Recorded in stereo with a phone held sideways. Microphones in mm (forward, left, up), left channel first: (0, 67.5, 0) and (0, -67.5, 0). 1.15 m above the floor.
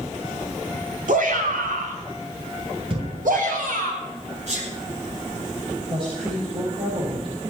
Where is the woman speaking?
40° right (ahead or behind), 4.5 m.